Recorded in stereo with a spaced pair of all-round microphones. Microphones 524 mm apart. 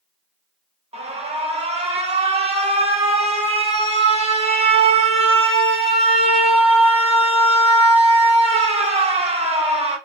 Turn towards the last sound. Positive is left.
turn(degrees=-10)  # may be behind; listen again after turning